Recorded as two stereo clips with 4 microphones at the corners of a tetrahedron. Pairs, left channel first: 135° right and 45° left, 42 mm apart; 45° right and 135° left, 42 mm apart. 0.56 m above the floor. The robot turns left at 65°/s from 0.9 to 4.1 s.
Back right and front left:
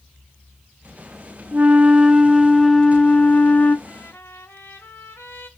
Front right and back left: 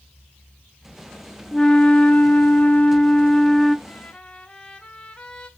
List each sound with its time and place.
1.5 s a flute: 20° left, 0.9 m; by 3.8 s 125° right, 0.9 m
3.9 s a trumpet: 90° right, 2.5 m; by 5.5 s 105° right, 2.5 m